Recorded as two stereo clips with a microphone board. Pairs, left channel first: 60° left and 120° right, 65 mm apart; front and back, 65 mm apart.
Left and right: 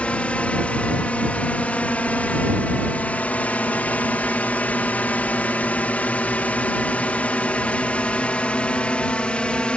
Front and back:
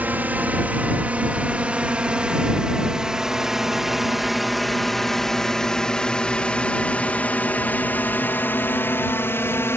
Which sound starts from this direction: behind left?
A drone, at 0.0 s.